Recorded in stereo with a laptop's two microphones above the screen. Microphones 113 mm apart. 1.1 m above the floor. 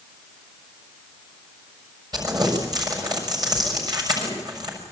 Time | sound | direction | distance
2.1 | crumpling | 35° right (ahead or behind) | 6 m